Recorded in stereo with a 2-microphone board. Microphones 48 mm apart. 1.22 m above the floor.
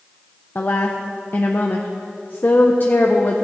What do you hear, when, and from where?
0.6 s a woman speaking: 45° left (ahead or behind), 0.6 m